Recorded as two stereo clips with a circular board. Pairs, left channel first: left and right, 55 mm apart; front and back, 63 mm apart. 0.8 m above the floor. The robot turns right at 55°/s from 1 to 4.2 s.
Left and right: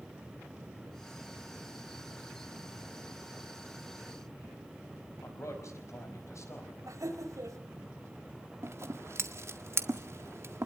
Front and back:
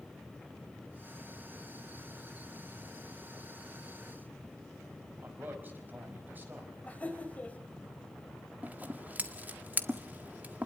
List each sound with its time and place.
5.2 s a man speaking: 120° left, 5 m
6.9 s laughter: 70° right, 3.5 m
8.6 s scissors: 120° right, 1.6 m